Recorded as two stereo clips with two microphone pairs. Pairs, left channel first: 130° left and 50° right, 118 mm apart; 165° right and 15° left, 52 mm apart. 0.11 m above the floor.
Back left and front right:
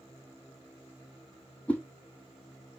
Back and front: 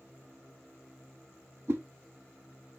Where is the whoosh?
50° left, 0.8 m.